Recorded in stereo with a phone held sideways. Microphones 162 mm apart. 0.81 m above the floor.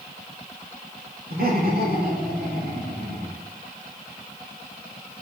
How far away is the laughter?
About 2.5 m.